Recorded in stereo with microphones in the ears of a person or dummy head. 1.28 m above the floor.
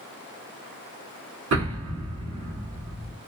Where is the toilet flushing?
I don't hear a toilet flushing.